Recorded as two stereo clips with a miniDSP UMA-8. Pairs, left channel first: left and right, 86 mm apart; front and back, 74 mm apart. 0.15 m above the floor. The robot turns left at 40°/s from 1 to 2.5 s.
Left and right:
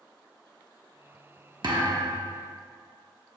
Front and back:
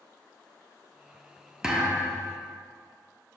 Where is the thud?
95° right, 1.4 m; by 2.4 s 125° right, 1.4 m.